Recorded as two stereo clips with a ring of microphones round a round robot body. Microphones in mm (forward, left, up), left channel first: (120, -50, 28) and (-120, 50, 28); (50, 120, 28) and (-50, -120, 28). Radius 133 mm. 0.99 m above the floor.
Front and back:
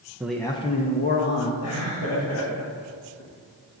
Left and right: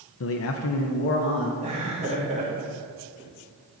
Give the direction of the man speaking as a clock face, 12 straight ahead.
9 o'clock.